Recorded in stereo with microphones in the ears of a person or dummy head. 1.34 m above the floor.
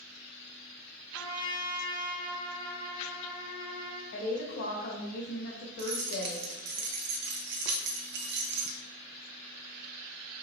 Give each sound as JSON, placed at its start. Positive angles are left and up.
{"t": 1.1, "sound": "a trumpet", "side_deg": 20, "distance_m": 0.8}
{"t": 4.1, "sound": "a woman speaking", "side_deg": 50, "distance_m": 1.7}
{"t": 5.8, "sound": "keys jangling", "side_deg": -60, "distance_m": 0.7}